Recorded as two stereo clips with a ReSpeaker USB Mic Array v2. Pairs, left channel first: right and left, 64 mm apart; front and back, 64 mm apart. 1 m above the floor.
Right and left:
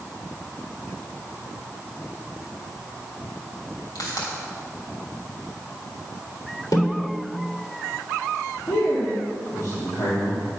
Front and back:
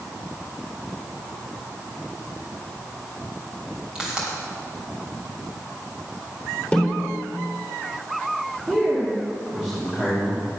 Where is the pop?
105° right, 3 m.